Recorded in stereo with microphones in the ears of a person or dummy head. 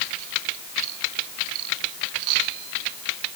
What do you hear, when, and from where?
Only background noise.